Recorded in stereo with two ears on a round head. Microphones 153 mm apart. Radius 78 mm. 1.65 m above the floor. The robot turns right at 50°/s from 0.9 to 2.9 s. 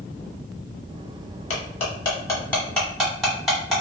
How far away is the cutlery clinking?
About 1.2 m.